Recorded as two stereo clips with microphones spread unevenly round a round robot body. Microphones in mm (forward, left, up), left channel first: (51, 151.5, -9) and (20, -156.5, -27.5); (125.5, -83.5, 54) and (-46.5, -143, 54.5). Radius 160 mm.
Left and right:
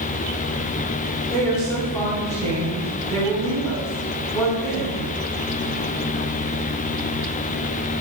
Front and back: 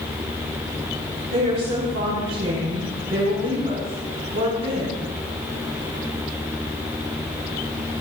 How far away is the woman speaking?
About 5 m.